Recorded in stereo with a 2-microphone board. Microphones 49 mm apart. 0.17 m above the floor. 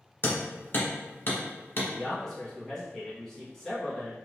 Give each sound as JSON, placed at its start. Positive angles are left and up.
{"t": 0.2, "sound": "hammering", "side_deg": 45, "distance_m": 1.1}
{"t": 1.9, "sound": "a man speaking", "side_deg": 10, "distance_m": 1.4}